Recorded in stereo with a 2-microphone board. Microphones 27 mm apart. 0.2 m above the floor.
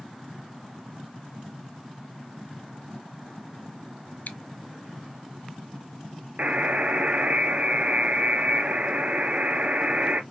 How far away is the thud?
No thud in this recording.